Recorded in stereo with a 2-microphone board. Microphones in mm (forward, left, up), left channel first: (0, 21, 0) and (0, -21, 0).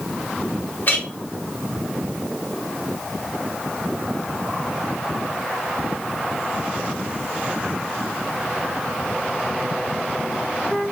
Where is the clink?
45° left (ahead or behind), 1.3 m.